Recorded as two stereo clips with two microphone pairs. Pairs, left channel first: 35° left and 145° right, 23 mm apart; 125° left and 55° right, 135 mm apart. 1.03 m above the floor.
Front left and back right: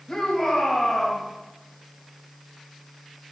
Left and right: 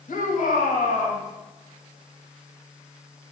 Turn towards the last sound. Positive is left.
turn(degrees=110)